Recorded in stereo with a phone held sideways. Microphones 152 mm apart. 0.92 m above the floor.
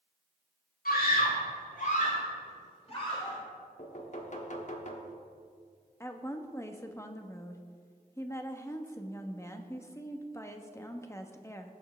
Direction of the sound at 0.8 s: 75° left (ahead or behind).